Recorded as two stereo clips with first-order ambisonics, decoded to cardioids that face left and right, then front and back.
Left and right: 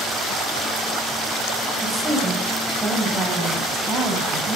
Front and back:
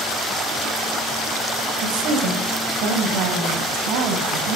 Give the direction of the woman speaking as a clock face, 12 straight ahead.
6 o'clock.